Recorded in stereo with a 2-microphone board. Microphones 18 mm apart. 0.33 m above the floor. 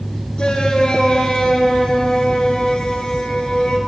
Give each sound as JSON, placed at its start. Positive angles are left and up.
{"t": 0.4, "sound": "a shout", "side_deg": 60, "distance_m": 4.5}